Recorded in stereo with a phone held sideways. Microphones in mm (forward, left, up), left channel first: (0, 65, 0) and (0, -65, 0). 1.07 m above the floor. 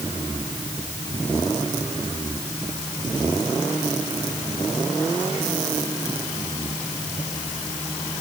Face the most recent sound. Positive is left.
No sound to turn to.